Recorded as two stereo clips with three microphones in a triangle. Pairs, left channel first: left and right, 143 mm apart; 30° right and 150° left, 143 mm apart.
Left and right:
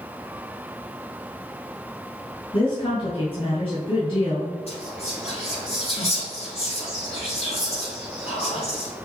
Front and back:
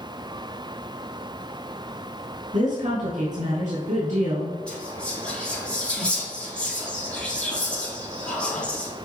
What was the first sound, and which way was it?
A woman speaking, 135° left.